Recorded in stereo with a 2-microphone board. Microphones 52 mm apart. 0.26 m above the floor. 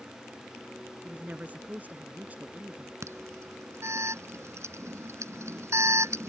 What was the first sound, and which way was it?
A woman speaking, 30° right (ahead or behind).